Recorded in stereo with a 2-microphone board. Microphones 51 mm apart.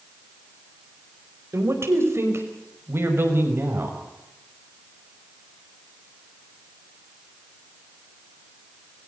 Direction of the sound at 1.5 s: 65° right (ahead or behind).